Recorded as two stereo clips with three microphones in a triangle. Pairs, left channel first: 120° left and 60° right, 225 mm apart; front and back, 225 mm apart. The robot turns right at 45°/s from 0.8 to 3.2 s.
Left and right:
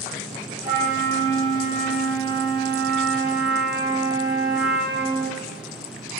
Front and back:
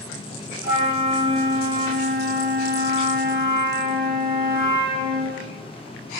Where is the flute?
105° left, 0.5 m; by 5.4 s 150° right, 0.5 m.